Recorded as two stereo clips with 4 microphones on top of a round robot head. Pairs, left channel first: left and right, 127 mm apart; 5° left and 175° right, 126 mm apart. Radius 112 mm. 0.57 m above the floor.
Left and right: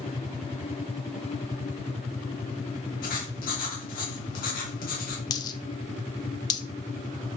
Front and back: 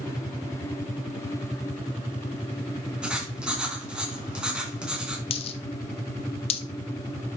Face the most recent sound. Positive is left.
turn(degrees=40)